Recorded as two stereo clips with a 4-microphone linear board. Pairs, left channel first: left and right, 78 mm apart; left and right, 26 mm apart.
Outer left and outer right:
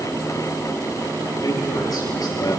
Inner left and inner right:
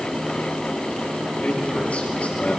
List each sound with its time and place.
1.4 s a man speaking: 55° left (ahead or behind), 9 m; by 2.6 s 50° left (ahead or behind), 9 m